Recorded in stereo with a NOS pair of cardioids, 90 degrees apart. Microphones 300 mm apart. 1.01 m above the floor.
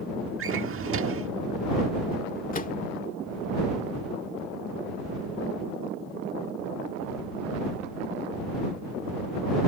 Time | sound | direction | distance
0.4 | a drawer | 45° right | ?
2.5 | a microwave | 25° left | ?